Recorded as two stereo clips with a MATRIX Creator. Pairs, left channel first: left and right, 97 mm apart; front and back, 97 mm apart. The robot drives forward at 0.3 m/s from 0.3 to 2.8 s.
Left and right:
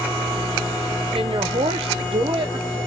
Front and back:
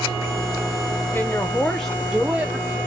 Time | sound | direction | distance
1.1 | a woman speaking | 65° right | 0.6 m